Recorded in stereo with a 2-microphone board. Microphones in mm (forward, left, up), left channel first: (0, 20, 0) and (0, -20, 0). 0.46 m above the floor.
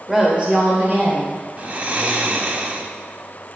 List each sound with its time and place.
0.1 s a woman speaking: 15° right (ahead or behind), 1.7 m; by 1.3 s 50° right (ahead or behind), 3 m
1.6 s snoring: 35° right (ahead or behind), 0.6 m